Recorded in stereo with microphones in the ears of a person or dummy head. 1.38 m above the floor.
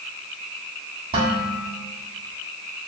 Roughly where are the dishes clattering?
Right.